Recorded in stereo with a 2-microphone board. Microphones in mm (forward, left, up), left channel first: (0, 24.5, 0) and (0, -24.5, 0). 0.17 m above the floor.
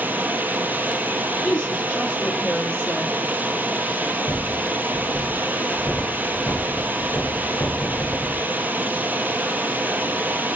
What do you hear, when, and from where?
0.0 s running water: 40° right (ahead or behind), 1.0 m
1.4 s a woman speaking: 20° left (ahead or behind), 4 m
4.3 s a rattle: 55° left (ahead or behind), 2.5 m